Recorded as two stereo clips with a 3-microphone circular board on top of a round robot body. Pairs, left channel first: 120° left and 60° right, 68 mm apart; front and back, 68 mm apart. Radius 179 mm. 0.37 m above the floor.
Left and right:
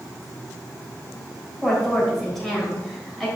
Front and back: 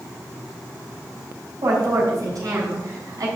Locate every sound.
1.6 s a woman speaking: 150° right, 3.5 m